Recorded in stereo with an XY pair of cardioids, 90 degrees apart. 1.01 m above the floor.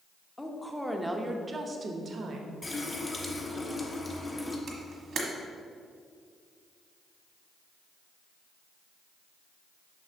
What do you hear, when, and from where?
0.4 s a woman speaking: 15° left, 1.0 m; by 2.5 s 65° right, 1.1 m
2.6 s a running tap: 30° left, 1.2 m
4.7 s a camera shutter: 65° right, 1.3 m